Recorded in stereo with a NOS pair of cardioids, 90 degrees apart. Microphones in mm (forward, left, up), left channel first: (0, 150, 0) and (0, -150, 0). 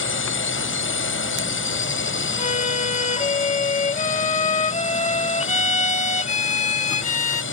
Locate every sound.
0.0 s a drone: 40° left
2.4 s a violin: 25° left